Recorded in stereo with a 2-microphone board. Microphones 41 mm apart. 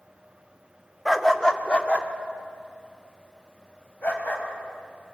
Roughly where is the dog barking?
Centre.